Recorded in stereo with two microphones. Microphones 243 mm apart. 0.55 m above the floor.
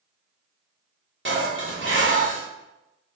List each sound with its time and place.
1.2 s dishes clattering: 55° right (ahead or behind), 1.4 m